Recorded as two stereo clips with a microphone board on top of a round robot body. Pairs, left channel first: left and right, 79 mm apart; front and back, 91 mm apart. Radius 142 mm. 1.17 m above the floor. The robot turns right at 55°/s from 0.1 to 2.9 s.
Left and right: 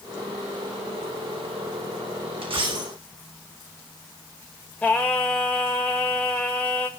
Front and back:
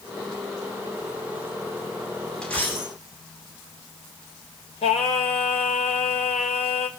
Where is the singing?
15° left, 1.6 m.